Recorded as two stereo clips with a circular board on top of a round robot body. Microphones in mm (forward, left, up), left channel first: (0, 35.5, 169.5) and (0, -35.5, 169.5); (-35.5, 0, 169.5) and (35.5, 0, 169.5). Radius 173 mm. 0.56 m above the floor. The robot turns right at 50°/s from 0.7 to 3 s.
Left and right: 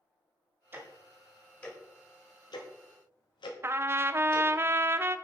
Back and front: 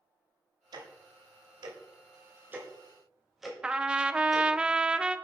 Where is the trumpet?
70° right, 0.6 m.